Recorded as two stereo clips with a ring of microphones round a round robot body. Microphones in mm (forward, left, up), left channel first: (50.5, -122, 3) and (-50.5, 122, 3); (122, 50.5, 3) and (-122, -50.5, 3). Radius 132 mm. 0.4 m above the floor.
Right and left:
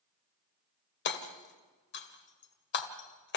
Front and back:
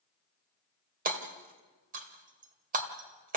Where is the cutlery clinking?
I don't hear cutlery clinking.